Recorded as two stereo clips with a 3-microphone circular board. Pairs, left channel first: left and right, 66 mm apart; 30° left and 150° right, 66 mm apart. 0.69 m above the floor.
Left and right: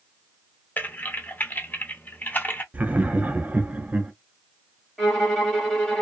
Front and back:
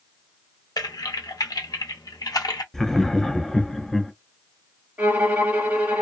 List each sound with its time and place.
0.8 s typing on a keyboard: 30° left, 0.6 m
2.7 s laughter: 50° right, 0.5 m
5.0 s a violin: 170° left, 1.2 m